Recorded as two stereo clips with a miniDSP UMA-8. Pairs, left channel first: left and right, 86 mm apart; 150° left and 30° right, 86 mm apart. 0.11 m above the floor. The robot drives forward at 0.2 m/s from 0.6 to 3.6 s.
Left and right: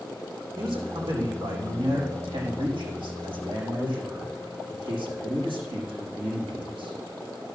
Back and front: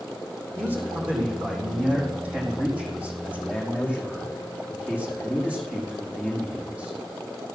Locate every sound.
0.6 s a man speaking: 100° right, 5 m; by 7.0 s 105° right, 5.5 m